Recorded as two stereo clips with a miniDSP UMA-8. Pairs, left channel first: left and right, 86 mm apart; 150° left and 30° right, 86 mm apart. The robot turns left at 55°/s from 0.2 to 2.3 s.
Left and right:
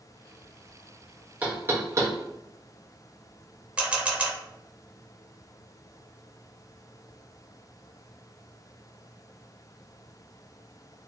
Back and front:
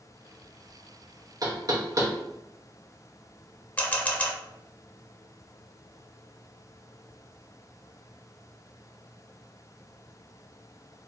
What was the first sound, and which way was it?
Knocking, 25° right.